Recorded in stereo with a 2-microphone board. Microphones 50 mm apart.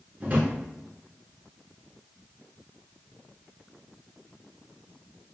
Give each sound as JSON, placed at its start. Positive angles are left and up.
{"t": 0.2, "sound": "a drawer", "side_deg": -40, "distance_m": 1.2}